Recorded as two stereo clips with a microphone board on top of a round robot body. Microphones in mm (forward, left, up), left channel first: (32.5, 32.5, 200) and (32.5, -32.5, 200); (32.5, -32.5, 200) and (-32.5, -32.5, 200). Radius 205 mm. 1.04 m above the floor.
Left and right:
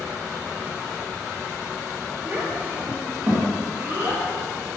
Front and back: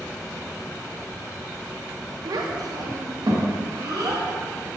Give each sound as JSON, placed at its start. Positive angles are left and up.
{"t": 2.2, "sound": "a child speaking", "azimuth_deg": -160, "distance_m": 1.0}